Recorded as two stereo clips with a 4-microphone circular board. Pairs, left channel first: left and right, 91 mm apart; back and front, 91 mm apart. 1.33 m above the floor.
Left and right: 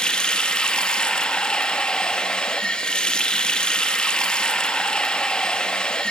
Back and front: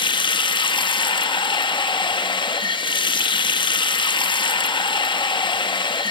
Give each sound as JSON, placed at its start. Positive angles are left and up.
{"t": 0.0, "sound": "running water", "azimuth_deg": 170, "distance_m": 1.0}